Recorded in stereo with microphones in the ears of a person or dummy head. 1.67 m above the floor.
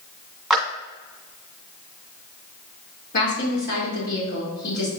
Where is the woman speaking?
55° left (ahead or behind), 4 m.